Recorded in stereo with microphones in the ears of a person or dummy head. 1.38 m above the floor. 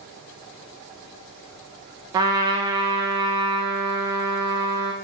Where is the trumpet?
20° right (ahead or behind), 0.6 m.